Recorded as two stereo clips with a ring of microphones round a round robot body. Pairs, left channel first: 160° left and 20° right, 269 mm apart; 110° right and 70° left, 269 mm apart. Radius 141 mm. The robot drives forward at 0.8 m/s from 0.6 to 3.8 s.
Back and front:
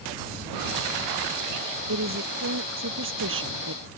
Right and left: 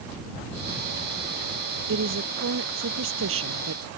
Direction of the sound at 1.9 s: 20° left.